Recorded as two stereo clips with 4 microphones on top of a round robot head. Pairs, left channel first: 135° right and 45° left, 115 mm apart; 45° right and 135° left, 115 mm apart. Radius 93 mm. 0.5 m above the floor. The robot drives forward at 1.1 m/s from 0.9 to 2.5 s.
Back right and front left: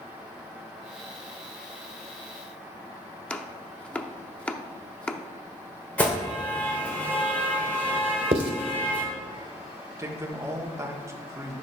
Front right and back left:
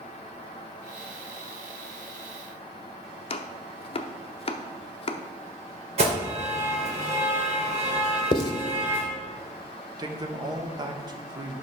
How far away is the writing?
About 0.9 m.